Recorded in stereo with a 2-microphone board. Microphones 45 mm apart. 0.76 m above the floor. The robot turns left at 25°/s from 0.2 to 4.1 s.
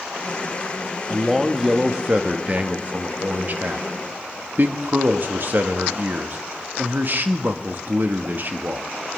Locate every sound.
1.1 s a man speaking: 10° right, 1.1 m; by 8.9 s 85° right, 1.1 m